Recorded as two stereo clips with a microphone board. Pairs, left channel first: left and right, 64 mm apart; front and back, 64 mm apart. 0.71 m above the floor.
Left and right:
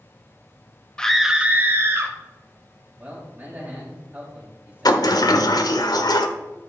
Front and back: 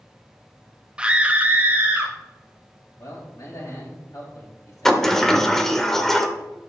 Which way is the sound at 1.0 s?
140° left.